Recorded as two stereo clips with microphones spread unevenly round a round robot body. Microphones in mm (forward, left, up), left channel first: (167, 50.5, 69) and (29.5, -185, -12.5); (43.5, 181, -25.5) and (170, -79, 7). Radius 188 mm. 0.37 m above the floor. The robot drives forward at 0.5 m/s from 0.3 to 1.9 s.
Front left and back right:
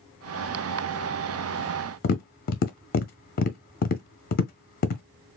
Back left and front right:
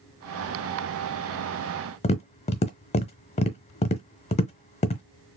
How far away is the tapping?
About 0.5 m.